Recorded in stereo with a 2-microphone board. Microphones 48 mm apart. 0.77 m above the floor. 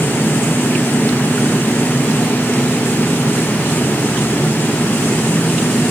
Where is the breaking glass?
No breaking glass in this recording.